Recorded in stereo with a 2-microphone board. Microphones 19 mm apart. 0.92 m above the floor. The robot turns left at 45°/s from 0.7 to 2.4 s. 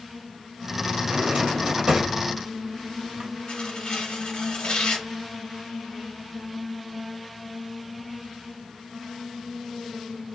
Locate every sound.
1.0 s a drawer: 60° right (ahead or behind), 1.1 m
3.5 s tearing paper: 70° left (ahead or behind), 1.1 m